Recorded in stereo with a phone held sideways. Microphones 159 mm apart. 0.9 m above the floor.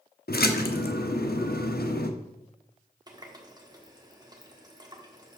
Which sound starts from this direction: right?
A running tap, at 3.1 s.